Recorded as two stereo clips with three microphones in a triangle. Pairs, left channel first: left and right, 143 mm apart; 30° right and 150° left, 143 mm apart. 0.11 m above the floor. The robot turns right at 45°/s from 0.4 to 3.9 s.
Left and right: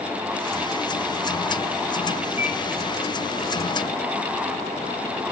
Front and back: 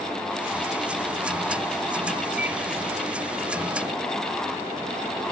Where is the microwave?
70° left, 2.5 m; by 2.6 s 80° left, 2.5 m.